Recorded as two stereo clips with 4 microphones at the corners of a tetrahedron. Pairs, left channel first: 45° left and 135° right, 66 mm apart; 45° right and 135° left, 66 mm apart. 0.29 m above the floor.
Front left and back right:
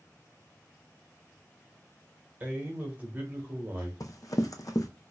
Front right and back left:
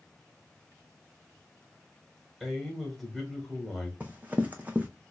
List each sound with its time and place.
2.4 s a man speaking: 135° right, 1.3 m
4.0 s running footsteps: 70° left, 0.7 m